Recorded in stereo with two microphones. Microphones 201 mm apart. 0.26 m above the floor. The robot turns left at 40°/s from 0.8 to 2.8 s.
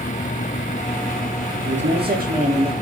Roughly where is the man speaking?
Right.